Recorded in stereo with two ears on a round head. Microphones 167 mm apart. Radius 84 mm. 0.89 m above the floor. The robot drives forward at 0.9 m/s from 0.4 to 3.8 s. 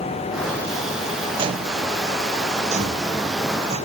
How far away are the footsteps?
About 0.9 m.